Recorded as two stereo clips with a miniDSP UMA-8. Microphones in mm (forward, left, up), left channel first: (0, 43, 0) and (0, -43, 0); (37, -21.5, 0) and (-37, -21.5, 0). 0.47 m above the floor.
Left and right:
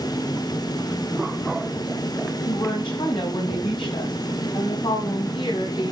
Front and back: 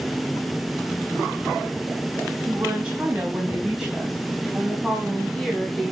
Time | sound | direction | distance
2.5 | a woman speaking | 110° left | 3 m